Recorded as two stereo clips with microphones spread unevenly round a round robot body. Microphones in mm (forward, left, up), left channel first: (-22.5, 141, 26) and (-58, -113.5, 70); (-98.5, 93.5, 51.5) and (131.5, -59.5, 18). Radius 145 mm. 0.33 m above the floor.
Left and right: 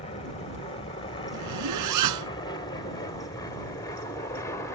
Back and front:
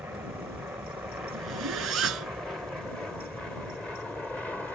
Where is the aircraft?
45° left; by 4.8 s 55° left.